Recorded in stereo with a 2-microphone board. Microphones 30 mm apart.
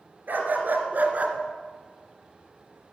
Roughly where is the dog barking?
Right.